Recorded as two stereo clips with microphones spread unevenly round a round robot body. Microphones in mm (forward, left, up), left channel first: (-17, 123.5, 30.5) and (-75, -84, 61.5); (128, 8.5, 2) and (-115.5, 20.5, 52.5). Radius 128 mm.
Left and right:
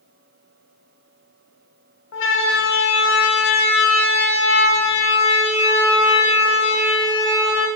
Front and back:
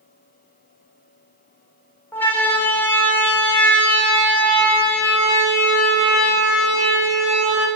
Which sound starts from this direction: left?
A siren, at 2.1 s.